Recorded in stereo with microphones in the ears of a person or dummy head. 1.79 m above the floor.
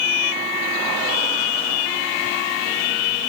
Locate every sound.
Only background noise.